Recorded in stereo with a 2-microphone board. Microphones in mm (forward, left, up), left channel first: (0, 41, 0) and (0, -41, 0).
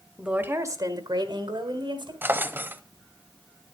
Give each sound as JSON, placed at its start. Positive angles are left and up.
{"t": 0.2, "sound": "a woman speaking", "side_deg": -10, "distance_m": 1.1}
{"t": 2.2, "sound": "a drawer", "side_deg": -25, "distance_m": 0.7}